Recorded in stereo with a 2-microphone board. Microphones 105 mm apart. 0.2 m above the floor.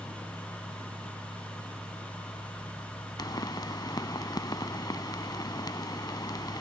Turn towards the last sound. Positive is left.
turn(degrees=40)  # may be behind; listen again after turning